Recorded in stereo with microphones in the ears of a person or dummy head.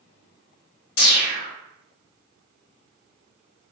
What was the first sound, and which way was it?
A whoosh, 65° left (ahead or behind).